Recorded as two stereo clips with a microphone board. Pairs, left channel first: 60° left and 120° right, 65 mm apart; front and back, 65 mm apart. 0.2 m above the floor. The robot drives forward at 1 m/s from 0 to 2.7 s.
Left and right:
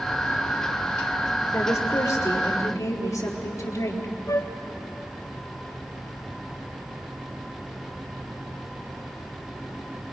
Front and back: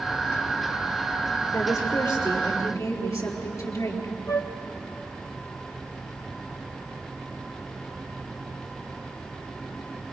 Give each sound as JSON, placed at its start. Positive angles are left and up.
{"t": 1.5, "sound": "a woman speaking", "azimuth_deg": 15, "distance_m": 4.5}
{"t": 4.3, "sound": "a flute", "azimuth_deg": 25, "distance_m": 1.3}